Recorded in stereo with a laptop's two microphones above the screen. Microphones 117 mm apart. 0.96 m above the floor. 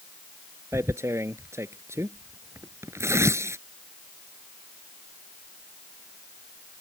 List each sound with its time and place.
0.7 s tearing paper: 25° right (ahead or behind)